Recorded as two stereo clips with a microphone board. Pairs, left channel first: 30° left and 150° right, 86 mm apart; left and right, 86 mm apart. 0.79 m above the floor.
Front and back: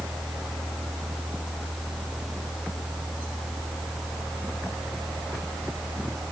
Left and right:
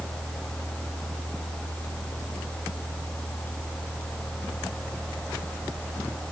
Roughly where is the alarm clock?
I don't hear an alarm clock.